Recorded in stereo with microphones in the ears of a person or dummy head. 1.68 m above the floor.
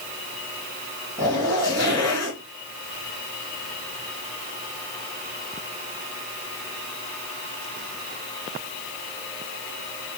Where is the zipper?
15° left (ahead or behind), 3 m.